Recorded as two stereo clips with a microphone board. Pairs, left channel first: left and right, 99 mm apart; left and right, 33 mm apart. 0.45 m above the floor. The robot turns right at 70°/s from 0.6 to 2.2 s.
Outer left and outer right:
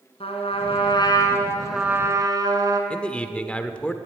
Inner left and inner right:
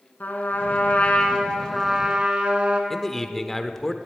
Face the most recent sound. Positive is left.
turn(degrees=10)  # may be behind; listen again after turning